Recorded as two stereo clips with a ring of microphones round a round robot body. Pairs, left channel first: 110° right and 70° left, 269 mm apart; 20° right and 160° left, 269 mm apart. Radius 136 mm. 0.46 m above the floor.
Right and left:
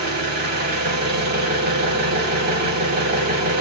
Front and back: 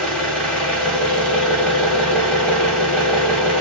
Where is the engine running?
60° left, 1.1 m.